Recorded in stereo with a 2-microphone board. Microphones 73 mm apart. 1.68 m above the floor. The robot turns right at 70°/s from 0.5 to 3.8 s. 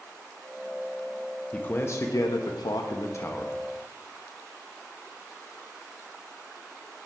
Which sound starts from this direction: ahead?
A man speaking, at 1.5 s.